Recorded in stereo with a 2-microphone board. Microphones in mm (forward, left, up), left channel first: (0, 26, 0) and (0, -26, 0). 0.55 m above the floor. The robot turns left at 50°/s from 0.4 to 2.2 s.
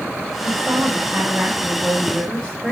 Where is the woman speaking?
80° right, 3 m; by 2.7 s 165° right, 3 m.